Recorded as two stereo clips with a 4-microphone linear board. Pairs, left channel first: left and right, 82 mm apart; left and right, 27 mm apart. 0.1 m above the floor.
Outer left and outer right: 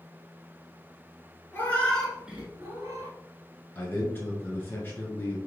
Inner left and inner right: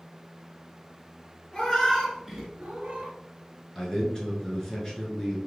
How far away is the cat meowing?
About 1.0 m.